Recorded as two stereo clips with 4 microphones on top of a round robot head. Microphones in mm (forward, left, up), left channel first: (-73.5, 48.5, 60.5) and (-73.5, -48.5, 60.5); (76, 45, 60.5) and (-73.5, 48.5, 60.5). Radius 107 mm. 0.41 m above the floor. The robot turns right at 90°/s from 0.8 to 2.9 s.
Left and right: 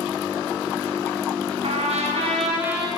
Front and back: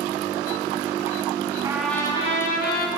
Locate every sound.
1.6 s a trumpet: 110° right, 4 m; by 2.9 s straight ahead, 4 m